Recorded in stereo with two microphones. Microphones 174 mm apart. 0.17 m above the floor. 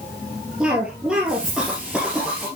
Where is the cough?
5° right (ahead or behind), 3 m.